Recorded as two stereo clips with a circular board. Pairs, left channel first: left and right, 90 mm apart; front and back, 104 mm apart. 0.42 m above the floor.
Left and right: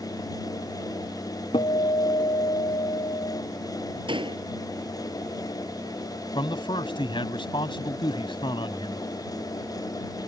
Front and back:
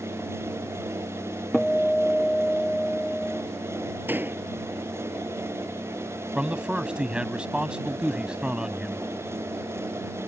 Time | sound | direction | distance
1.5 | a guitar | 85° left | ?
4.1 | a door slam | 110° right | ?
6.3 | a man speaking | 100° left | ?